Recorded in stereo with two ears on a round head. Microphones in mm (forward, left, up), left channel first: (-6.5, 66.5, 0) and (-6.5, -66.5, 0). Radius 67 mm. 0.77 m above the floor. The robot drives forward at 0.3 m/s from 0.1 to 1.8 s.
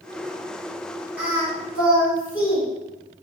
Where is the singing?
10° right (ahead or behind), 1.1 m.